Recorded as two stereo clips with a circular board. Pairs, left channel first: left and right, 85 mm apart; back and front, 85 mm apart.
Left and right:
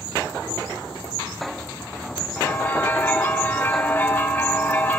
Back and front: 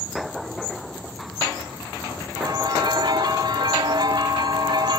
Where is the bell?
15° left, 3 m.